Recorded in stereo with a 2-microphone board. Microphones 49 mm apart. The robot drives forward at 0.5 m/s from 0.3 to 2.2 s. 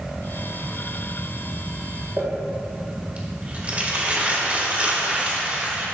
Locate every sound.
2.2 s crumpling: 30° right (ahead or behind), 2 m